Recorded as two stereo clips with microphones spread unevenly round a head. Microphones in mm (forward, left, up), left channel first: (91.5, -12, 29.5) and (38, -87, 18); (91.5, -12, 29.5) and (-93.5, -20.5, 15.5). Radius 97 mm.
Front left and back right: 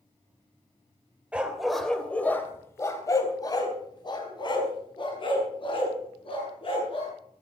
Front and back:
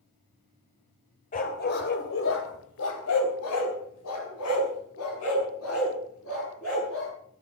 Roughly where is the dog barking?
Ahead right.